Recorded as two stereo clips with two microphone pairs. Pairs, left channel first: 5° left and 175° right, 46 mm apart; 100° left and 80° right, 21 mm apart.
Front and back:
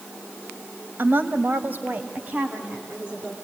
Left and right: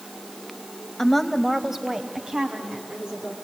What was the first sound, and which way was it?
A woman speaking, 165° left.